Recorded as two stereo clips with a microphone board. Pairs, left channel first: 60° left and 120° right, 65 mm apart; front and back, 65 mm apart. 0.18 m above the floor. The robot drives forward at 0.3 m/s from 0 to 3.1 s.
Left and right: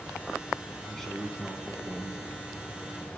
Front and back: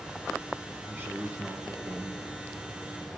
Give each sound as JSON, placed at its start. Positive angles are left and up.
{"t": 0.9, "sound": "a man speaking", "azimuth_deg": 140, "distance_m": 1.6}